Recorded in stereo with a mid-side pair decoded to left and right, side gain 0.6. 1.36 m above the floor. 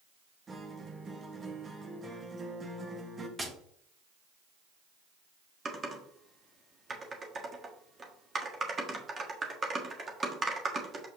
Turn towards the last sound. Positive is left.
turn(degrees=-30)